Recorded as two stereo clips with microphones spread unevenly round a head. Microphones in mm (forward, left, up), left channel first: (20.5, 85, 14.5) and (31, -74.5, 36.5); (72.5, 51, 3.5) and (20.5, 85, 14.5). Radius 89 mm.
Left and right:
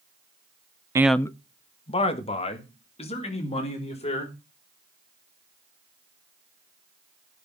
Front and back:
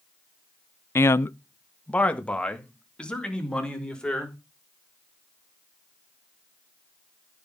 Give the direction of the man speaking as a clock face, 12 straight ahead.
2 o'clock.